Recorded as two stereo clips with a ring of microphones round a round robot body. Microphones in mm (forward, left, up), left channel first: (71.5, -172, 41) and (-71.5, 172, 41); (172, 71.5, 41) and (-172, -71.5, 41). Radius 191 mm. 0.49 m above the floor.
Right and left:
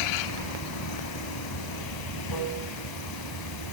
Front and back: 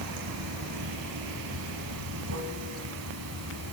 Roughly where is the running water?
Right.